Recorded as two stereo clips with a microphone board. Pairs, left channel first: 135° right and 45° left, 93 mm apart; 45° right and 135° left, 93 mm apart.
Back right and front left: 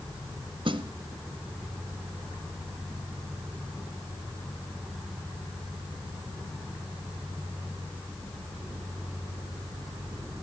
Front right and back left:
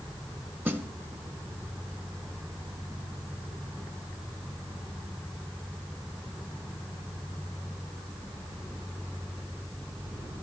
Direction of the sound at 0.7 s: 70° left.